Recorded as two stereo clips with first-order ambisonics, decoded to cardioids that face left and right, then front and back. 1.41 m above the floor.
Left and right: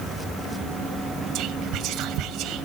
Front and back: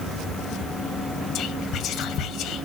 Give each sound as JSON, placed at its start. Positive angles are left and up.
{"t": 1.4, "sound": "whispering", "azimuth_deg": -50, "distance_m": 1.3}